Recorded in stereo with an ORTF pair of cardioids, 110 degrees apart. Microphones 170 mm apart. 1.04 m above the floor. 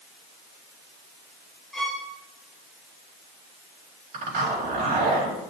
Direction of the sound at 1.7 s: 5° left.